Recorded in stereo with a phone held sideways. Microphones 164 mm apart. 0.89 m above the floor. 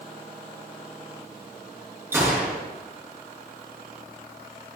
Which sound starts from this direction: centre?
A gunshot, at 2.1 s.